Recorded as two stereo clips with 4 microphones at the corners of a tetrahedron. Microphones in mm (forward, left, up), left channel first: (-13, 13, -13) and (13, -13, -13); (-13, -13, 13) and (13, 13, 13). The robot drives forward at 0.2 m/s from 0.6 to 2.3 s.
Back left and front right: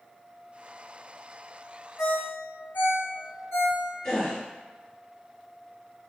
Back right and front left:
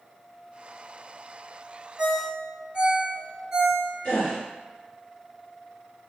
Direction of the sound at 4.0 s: 155° right.